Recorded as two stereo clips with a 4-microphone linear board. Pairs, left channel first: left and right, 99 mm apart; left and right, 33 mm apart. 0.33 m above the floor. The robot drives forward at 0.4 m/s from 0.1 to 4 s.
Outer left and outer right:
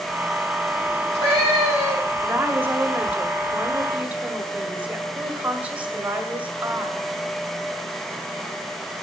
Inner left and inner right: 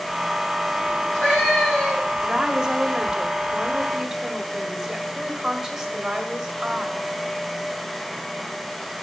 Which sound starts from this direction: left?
A cat meowing, at 0.9 s.